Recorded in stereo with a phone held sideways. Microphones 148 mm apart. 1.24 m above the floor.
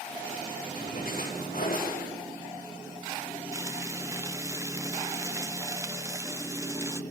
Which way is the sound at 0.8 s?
80° left.